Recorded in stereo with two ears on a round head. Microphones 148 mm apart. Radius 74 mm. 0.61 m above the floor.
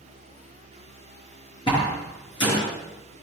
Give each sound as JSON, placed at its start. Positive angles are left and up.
{"t": 1.7, "sound": "a door slam", "side_deg": 30, "distance_m": 8.0}